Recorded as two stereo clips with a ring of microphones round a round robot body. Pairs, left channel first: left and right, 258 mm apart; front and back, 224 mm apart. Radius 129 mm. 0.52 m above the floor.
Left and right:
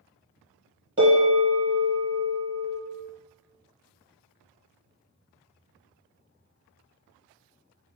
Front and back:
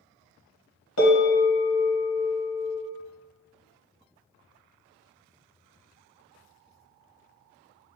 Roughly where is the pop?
I don't hear a pop.